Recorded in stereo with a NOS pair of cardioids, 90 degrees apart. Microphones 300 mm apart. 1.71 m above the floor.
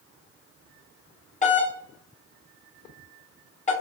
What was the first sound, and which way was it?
A doorbell, 25° left.